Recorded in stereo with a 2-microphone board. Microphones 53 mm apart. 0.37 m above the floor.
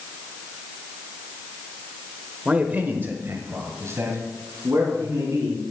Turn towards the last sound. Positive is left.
turn(degrees=-60)  # may be behind; listen again after turning